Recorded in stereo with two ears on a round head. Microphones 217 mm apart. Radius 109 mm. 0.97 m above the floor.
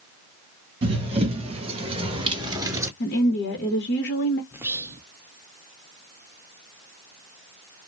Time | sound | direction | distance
0.8 | running footsteps | 25° right (ahead or behind) | 1.6 m
3.0 | a woman speaking | 45° left (ahead or behind) | 0.9 m
4.5 | whispering | 10° right (ahead or behind) | 0.5 m